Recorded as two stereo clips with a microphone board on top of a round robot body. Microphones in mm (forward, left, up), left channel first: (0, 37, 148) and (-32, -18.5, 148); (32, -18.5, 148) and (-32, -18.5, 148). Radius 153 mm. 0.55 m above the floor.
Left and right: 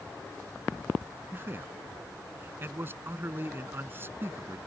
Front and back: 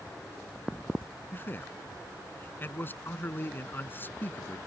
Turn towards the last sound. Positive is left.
turn(degrees=-60)